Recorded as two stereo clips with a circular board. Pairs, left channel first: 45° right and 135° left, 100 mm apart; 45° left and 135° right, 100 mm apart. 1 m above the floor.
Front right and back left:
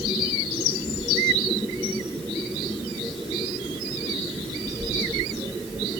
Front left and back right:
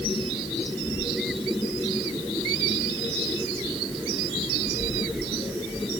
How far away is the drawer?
No drawer in this recording.